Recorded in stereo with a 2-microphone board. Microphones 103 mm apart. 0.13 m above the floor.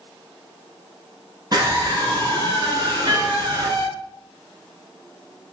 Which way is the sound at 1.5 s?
45° right (ahead or behind).